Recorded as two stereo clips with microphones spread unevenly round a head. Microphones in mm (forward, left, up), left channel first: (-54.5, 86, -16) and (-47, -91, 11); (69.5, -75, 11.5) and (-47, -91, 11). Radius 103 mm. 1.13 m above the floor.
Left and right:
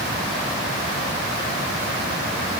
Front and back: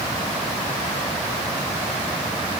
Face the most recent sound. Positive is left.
No sound to turn to.